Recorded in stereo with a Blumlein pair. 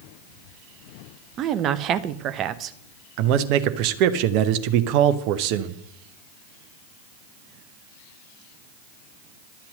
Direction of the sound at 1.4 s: 30° right.